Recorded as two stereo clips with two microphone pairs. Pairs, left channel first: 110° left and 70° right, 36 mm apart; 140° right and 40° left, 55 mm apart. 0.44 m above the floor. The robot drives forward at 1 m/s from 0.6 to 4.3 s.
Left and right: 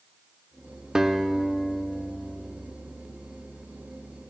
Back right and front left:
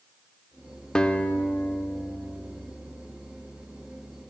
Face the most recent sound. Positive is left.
turn(degrees=-175)